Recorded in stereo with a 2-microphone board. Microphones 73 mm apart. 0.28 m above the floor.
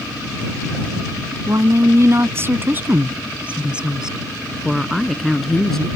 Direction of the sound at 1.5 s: 50° right (ahead or behind).